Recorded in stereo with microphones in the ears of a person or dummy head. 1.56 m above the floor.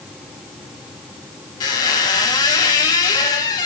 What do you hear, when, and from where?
1.6 s a squeak: 20° left (ahead or behind), 1.0 m